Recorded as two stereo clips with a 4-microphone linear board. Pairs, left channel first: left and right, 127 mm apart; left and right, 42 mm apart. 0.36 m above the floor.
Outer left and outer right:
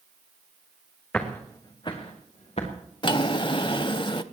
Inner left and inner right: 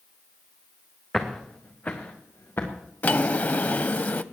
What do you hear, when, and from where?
1.1 s footsteps: 10° left (ahead or behind), 2 m; by 2.7 s 60° left (ahead or behind), 3 m
3.0 s a drawer: 45° left (ahead or behind), 0.5 m